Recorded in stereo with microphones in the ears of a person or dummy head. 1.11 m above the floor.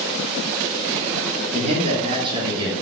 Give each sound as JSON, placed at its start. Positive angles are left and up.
{"t": 1.5, "sound": "a man speaking", "side_deg": -40, "distance_m": 2.5}